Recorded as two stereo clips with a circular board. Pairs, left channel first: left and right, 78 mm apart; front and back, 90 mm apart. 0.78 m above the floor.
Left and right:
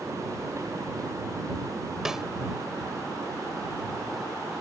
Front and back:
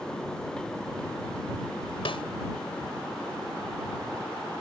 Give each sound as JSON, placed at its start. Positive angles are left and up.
{"t": 2.0, "sound": "a snare drum", "azimuth_deg": -10}